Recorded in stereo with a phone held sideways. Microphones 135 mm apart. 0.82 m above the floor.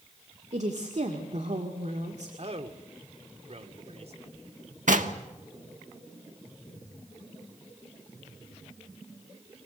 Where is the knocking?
70° right (ahead or behind), 1.3 m.